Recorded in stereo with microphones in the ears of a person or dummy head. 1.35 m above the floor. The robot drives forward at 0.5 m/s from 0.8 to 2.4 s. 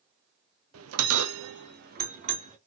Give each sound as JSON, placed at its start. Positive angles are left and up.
{"t": 0.7, "sound": "a bell", "side_deg": -80, "distance_m": 0.6}